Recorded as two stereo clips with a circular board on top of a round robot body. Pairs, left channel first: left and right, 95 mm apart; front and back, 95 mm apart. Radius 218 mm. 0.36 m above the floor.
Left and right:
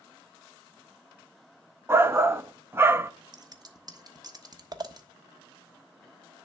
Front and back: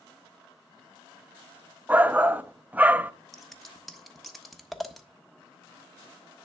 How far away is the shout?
About 0.9 m.